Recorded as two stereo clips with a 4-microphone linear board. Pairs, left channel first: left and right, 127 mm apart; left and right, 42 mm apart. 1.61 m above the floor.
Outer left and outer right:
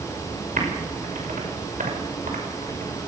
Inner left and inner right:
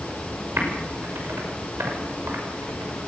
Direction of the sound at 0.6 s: 75° right (ahead or behind).